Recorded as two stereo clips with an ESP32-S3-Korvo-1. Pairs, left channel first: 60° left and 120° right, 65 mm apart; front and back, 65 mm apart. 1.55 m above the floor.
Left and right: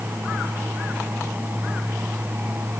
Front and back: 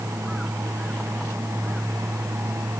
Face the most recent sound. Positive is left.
No sound to turn to.